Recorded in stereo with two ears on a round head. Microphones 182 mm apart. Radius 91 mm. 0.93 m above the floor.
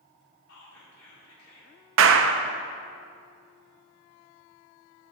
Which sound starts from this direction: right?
A clap, at 2.0 s.